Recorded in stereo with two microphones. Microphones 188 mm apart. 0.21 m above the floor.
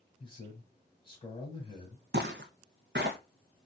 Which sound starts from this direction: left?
A man speaking, at 0.2 s.